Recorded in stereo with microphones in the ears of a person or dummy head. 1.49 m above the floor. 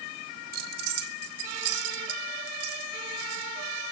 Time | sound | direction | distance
0.5 | keys jangling | 55° right (ahead or behind) | 2 m